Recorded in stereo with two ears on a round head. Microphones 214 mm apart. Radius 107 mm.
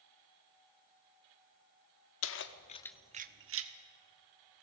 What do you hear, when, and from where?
2.2 s keys jangling: 60° left (ahead or behind), 1.3 m; by 3.7 s 65° right (ahead or behind), 1.4 m